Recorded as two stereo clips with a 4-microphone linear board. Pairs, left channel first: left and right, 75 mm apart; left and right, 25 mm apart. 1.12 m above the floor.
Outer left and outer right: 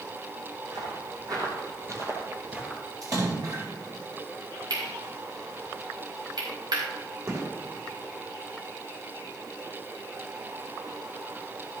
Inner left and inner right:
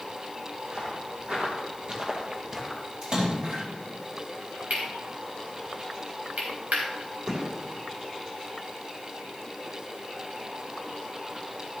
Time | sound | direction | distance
0.7 | footsteps | 60° right (ahead or behind) | 3.5 m
3.0 | a splash | 50° right (ahead or behind) | 4 m
4.7 | cutlery clinking | 80° right | 4.5 m
7.3 | a gunshot | 40° right (ahead or behind) | 3 m